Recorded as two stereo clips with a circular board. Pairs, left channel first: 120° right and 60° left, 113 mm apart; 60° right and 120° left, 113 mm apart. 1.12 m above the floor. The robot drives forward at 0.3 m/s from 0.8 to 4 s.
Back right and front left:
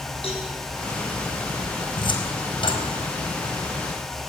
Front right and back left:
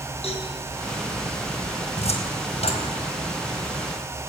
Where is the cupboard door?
80° right, 3.5 m.